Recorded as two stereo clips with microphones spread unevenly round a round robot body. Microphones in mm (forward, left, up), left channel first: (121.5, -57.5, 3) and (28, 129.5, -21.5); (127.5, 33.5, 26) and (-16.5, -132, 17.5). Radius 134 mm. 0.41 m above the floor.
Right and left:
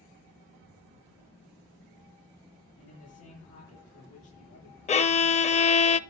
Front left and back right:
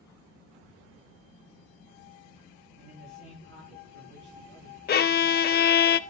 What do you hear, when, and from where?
2.8 s a man speaking: 105° right, 5 m
4.9 s a violin: straight ahead, 0.7 m